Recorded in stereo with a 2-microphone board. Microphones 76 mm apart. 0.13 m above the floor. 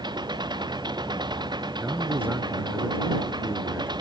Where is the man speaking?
25° right (ahead or behind).